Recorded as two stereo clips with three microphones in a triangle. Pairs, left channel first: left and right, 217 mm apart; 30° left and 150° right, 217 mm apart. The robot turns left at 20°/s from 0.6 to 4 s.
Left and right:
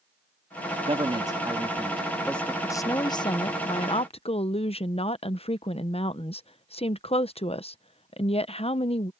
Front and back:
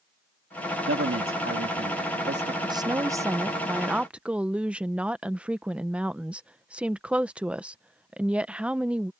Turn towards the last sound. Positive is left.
turn(degrees=130)